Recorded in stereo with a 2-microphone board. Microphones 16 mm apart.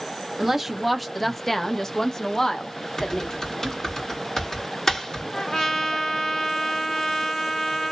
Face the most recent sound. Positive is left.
turn(degrees=35)  # may be behind; listen again after turning